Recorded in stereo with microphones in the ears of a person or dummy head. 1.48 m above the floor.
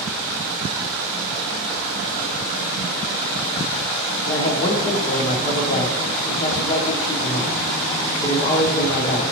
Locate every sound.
4.3 s a man speaking: 30° left (ahead or behind), 0.7 m